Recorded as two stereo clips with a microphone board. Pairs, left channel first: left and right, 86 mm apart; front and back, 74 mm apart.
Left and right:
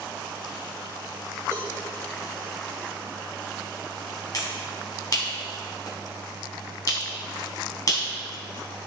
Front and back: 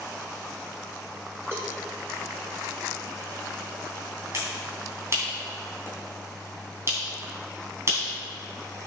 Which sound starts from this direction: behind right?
A cowbell, at 1.5 s.